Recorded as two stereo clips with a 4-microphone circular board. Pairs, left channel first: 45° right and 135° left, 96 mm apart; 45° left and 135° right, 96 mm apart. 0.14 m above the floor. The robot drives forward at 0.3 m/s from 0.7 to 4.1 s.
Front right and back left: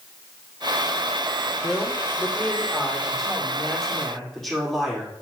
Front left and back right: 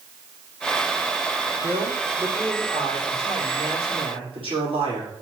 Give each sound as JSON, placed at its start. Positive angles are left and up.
{"t": 1.6, "sound": "a man speaking", "azimuth_deg": -125, "distance_m": 6.0}